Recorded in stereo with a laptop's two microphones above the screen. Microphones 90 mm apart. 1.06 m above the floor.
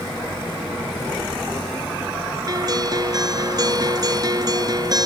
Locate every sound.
2.5 s a guitar: 40° right (ahead or behind)